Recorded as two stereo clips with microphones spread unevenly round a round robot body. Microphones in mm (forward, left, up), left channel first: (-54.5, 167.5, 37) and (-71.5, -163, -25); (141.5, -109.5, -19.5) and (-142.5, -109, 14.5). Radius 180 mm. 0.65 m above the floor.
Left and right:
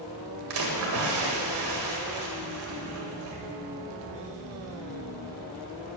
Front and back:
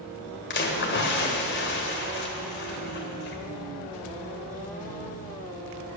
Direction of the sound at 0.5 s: 45° right.